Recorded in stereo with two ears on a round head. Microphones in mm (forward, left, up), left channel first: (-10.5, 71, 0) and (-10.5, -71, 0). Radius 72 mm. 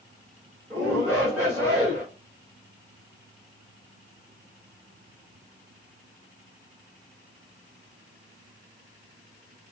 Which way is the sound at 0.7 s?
15° right (ahead or behind).